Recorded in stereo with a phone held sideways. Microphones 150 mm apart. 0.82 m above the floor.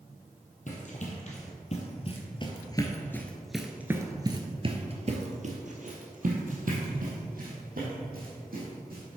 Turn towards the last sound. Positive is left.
turn(degrees=-75)  # may be behind; listen again after turning